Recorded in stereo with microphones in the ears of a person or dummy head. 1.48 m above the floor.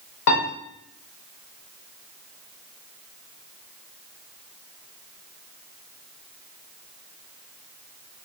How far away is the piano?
About 1.0 m.